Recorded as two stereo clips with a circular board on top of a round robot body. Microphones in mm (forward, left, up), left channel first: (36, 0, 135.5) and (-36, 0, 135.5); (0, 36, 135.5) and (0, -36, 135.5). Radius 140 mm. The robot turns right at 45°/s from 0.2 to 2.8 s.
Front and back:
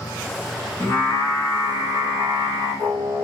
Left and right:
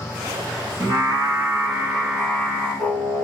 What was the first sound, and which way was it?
Singing, 60° right.